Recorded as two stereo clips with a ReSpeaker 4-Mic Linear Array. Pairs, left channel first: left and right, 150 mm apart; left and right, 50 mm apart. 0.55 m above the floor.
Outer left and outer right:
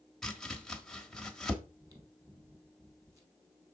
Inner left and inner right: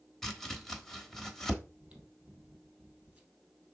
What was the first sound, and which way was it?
Chopping, 5° left (ahead or behind).